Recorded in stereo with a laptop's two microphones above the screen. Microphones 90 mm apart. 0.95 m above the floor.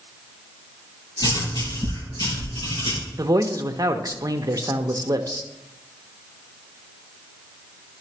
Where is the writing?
55° left (ahead or behind), 5 m.